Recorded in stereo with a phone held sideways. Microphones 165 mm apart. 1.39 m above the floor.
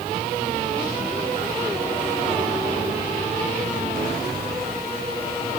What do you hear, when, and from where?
Only background noise.